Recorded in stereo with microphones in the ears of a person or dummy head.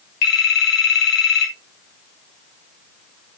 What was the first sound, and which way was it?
A phone ringing, 60° left (ahead or behind).